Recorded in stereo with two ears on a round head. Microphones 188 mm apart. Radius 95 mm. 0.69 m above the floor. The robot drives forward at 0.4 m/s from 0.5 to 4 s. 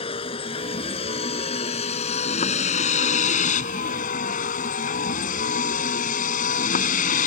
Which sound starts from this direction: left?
A vehicle, at 0.0 s.